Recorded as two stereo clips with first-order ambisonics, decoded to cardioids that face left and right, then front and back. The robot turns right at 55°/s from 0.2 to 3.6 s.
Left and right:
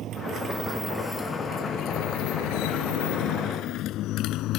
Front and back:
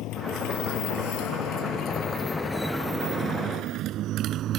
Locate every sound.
0.0 s a motorcycle: 40° right; by 4.6 s 130° left